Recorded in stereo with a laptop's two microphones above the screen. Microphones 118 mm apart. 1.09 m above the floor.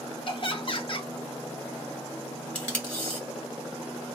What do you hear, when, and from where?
0.3 s laughter: 50° left (ahead or behind), 0.8 m
2.5 s tape being pulled: 15° left (ahead or behind), 1.1 m